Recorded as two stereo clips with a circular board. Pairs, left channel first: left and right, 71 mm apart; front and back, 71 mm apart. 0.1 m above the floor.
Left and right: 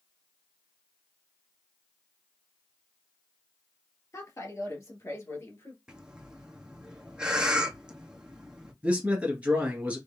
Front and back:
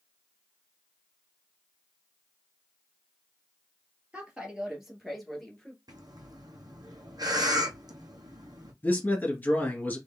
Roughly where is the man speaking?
Ahead right.